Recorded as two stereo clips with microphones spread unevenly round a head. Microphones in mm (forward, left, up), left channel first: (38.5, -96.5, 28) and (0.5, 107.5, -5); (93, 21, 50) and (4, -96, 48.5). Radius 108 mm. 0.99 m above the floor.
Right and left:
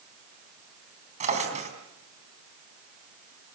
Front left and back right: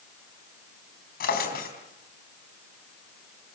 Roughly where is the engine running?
I don't hear an engine running.